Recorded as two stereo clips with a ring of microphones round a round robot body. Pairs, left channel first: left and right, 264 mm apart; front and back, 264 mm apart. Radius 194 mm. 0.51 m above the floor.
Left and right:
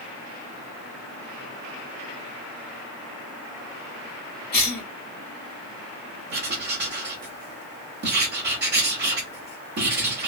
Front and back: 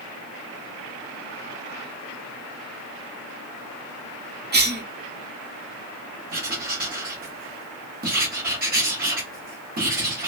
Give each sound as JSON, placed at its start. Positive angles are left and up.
{"t": 4.5, "sound": "a cough", "azimuth_deg": 140, "distance_m": 1.5}
{"t": 6.3, "sound": "writing", "azimuth_deg": -130, "distance_m": 1.2}